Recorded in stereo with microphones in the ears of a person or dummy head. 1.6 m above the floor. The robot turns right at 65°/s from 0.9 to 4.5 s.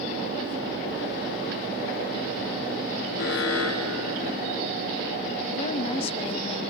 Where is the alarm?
55° left, 3.5 m; by 4.6 s 140° left, 3.5 m.